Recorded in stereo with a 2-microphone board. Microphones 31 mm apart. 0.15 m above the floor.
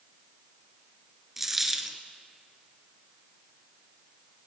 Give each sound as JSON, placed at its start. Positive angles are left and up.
{"t": 1.4, "sound": "a dropped coin", "side_deg": -10, "distance_m": 0.9}